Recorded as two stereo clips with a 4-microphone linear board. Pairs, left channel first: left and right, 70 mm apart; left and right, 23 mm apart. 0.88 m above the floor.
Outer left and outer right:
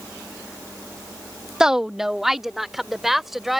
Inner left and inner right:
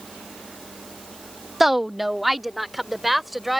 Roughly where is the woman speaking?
Centre.